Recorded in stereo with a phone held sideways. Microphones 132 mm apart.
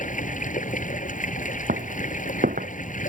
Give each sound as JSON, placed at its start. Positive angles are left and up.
{"t": 0.0, "sound": "running water", "side_deg": 70}
{"t": 1.7, "sound": "footsteps", "side_deg": -80}